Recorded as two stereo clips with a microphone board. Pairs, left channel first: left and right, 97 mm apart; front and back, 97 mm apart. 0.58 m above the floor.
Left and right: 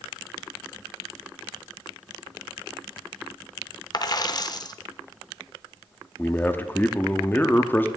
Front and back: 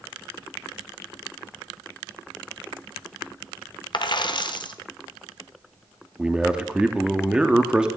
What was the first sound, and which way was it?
A dropped coin, 40° left.